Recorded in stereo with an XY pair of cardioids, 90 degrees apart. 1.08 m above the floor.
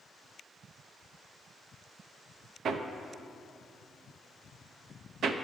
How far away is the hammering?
About 0.7 m.